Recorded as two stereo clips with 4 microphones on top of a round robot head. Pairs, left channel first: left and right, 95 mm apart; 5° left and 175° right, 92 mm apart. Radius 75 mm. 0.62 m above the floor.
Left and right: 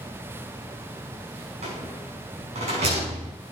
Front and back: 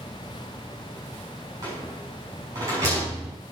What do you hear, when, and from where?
1.6 s a rattle: 110° right, 7 m